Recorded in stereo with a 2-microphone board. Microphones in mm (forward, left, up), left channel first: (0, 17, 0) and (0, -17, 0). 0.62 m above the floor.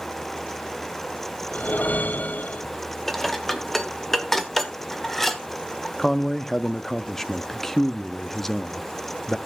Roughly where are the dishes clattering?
Centre.